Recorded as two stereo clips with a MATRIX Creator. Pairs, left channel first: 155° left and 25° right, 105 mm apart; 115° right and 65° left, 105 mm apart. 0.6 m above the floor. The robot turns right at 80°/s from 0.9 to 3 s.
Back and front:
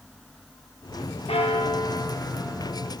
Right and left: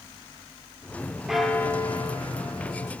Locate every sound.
1.3 s a bell: 150° left, 0.9 m; by 2.9 s 80° right, 0.9 m